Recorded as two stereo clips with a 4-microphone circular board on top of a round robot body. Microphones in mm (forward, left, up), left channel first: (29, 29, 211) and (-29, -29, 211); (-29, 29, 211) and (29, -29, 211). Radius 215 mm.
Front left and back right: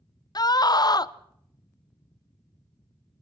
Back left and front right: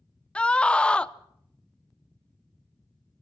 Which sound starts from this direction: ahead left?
A scream, at 0.3 s.